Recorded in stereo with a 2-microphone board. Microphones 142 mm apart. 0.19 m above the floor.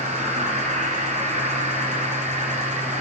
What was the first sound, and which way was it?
An insect, 60° right (ahead or behind).